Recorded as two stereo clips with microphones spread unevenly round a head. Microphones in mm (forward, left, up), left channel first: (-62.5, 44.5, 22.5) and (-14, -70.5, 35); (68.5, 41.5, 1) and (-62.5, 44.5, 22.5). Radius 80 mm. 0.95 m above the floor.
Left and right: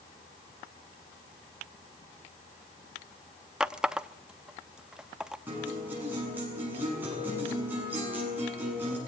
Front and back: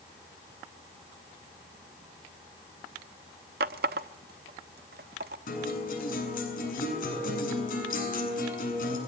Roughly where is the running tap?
Behind right.